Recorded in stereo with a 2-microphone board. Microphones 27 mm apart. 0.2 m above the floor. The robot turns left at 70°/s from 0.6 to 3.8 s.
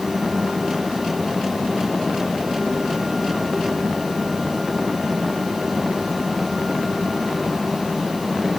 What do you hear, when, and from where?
Only background noise.